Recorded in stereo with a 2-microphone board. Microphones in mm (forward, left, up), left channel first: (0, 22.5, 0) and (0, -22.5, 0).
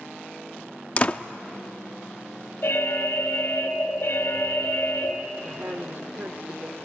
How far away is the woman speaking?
About 1.2 m.